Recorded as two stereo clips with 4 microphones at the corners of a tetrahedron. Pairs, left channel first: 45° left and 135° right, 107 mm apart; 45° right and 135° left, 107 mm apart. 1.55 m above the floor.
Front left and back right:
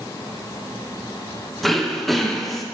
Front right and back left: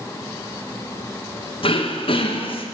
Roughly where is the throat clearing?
Ahead right.